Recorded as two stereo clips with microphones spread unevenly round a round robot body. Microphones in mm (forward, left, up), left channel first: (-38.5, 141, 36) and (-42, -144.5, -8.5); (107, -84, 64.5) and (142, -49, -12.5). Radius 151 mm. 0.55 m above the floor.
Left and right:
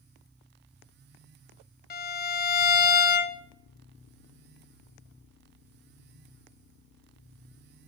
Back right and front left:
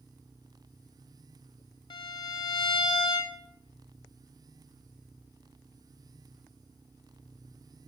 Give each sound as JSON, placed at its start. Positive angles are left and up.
{"t": 1.9, "sound": "a violin", "azimuth_deg": 140, "distance_m": 0.9}